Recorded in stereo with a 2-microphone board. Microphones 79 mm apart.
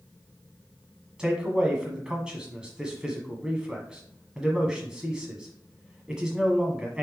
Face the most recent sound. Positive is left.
turn(degrees=-10)  # may be behind; listen again after turning